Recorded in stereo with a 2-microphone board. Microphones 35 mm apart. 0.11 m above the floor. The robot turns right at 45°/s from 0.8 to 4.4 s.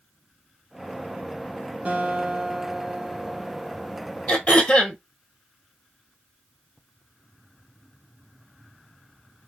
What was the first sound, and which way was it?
A guitar, 80° right.